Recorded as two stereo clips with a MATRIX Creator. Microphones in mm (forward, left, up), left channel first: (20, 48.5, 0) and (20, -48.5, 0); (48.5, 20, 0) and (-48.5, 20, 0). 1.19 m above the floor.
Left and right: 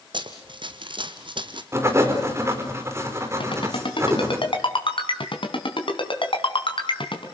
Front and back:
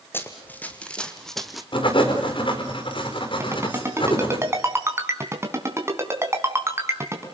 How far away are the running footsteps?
About 2.5 m.